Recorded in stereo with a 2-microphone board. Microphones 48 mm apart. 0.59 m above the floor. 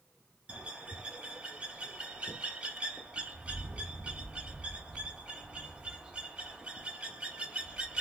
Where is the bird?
20° right (ahead or behind), 1.6 m.